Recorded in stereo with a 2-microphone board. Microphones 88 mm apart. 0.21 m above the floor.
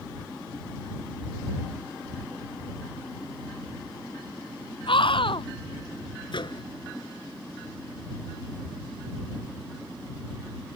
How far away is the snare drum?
No snare drum in this recording.